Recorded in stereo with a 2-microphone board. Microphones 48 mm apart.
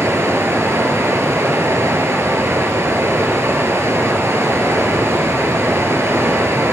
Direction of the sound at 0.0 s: 70° right (ahead or behind).